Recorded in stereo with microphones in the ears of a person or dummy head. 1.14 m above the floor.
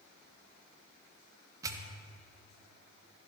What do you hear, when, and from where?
1.6 s a pop: 15° right (ahead or behind), 1.0 m